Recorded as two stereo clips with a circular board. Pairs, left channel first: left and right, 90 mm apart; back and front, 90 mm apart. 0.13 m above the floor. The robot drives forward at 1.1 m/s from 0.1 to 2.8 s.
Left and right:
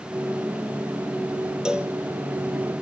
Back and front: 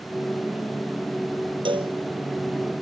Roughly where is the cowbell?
Ahead.